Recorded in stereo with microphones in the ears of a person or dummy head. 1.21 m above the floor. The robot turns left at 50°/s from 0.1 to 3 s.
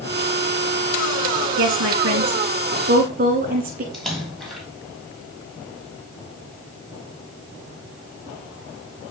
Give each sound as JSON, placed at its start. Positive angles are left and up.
{"t": 1.6, "sound": "a woman speaking", "side_deg": -65, "distance_m": 1.4}
{"t": 3.9, "sound": "a splash", "side_deg": 0, "distance_m": 1.5}